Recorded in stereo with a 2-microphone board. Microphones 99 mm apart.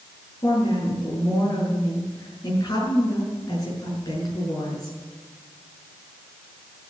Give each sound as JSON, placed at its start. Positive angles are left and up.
{"t": 0.4, "sound": "a woman speaking", "side_deg": 45, "distance_m": 6.5}